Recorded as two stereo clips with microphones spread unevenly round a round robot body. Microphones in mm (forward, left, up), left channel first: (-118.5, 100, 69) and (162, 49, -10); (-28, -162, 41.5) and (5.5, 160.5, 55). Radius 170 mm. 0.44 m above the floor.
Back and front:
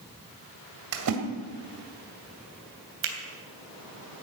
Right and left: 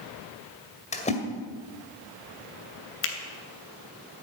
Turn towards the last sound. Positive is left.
turn(degrees=-45)